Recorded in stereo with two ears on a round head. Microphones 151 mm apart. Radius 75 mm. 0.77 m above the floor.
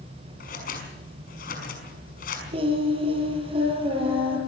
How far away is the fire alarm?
I don't hear a fire alarm.